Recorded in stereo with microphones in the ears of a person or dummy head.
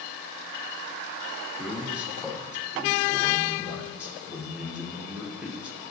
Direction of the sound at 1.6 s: Centre (ahead or behind).